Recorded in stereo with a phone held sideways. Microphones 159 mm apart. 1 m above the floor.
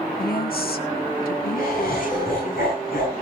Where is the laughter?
75° left (ahead or behind), 9 m.